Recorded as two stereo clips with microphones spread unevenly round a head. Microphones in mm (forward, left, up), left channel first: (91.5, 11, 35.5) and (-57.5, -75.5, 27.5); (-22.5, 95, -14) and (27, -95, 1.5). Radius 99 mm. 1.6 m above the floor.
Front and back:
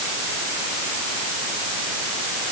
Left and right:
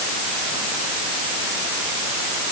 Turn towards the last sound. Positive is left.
No sound to turn to.